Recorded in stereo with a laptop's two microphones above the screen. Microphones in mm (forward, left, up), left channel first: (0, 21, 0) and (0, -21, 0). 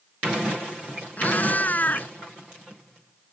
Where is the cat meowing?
45° left (ahead or behind).